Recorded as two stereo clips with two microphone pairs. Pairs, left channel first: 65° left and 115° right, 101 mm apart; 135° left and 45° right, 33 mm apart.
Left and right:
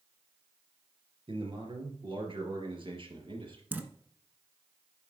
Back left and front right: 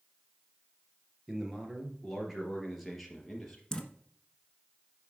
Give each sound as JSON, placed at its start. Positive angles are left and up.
{"t": 1.3, "sound": "a man speaking", "azimuth_deg": -110, "distance_m": 2.5}
{"t": 3.7, "sound": "dripping", "azimuth_deg": -165, "distance_m": 1.2}